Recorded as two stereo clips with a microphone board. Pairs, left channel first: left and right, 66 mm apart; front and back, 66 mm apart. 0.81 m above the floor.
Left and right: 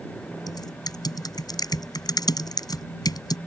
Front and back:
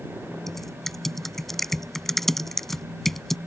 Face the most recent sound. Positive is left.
turn(degrees=85)